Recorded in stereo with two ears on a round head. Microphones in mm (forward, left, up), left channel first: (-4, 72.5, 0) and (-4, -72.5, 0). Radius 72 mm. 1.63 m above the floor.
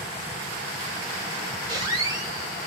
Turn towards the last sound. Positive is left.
turn(degrees=-25)  # may be behind; listen again after turning